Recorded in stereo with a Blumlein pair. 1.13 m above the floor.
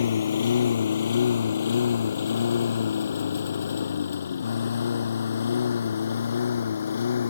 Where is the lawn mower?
65° left.